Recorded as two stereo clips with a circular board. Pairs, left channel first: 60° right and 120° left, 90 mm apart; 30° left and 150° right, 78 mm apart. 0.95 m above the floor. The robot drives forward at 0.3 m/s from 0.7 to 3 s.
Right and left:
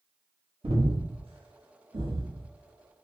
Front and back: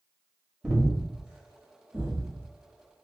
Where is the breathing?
125° left, 0.8 m; by 3.1 s 150° left, 1.3 m.